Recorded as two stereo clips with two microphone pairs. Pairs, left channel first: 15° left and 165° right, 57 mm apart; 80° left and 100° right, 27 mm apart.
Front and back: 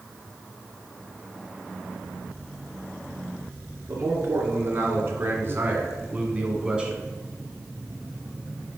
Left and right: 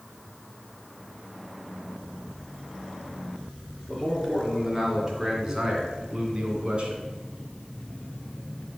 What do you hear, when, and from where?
3.9 s a man speaking: 170° left, 2.5 m; by 7.0 s 95° right, 1.7 m